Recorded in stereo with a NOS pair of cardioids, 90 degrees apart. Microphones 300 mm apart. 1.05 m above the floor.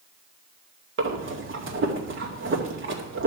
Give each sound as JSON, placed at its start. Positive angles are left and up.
{"t": 1.0, "sound": "breathing", "azimuth_deg": -40, "distance_m": 2.0}